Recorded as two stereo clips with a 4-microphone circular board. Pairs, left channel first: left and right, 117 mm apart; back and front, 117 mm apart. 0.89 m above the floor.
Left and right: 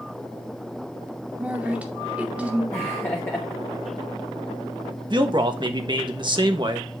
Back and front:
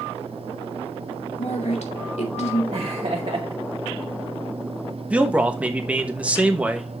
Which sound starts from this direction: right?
A man speaking, at 5.1 s.